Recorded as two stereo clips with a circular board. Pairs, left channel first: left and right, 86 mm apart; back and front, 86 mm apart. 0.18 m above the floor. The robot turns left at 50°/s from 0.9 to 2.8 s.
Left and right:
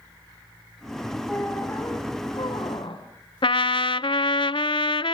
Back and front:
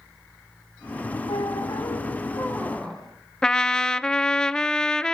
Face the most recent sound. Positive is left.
turn(degrees=100)